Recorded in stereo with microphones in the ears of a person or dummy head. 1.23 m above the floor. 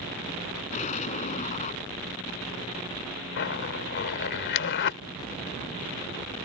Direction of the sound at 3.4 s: 60° left (ahead or behind).